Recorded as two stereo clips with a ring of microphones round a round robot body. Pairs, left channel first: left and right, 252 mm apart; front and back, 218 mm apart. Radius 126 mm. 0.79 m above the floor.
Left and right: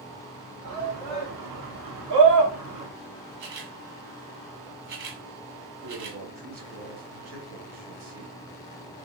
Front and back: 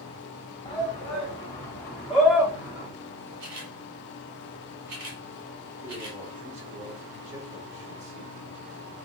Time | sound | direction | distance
0.7 | a shout | 65° right | 2 m
3.4 | a camera shutter | 135° right | 1.6 m
5.8 | a man speaking | 115° right | 2.5 m